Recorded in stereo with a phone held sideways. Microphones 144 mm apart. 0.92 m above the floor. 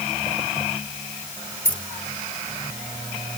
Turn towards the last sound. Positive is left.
turn(degrees=65)  # may be behind; listen again after turning